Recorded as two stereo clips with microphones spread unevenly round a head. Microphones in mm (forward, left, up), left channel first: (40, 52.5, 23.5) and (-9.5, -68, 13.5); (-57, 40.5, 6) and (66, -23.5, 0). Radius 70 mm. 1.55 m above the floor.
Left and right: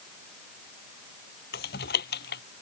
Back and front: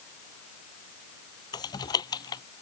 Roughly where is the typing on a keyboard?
Left.